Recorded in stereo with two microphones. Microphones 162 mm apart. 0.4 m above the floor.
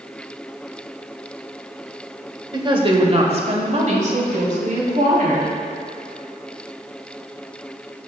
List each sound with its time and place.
2.5 s a woman speaking: 25° right (ahead or behind), 1.2 m; by 5.5 s 55° right (ahead or behind), 3 m